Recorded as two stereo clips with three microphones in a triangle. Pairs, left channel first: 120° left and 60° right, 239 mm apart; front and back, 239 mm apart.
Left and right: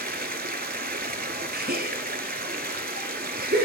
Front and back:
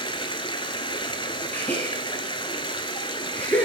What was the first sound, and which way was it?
Running water, 60° right.